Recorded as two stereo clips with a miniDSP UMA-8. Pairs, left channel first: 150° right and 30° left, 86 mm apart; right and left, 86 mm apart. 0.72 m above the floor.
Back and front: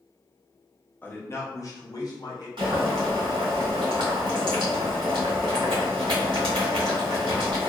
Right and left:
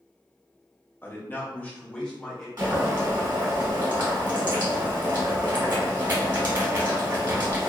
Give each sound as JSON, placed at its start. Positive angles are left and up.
{"t": 1.0, "sound": "a man speaking", "azimuth_deg": -115, "distance_m": 0.7}
{"t": 2.6, "sound": "boiling", "azimuth_deg": 45, "distance_m": 1.8}